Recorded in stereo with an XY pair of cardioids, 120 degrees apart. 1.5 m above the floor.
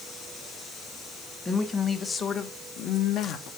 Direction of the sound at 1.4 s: 25° left.